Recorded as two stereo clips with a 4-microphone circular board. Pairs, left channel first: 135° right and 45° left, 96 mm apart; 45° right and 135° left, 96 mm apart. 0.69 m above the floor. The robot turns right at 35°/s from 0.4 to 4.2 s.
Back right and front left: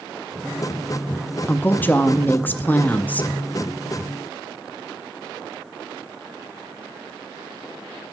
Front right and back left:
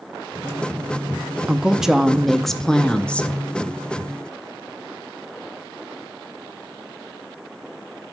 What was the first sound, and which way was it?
A woman speaking, 160° right.